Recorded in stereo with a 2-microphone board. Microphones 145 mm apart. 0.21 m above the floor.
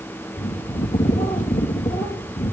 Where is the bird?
55° left (ahead or behind), 3 m.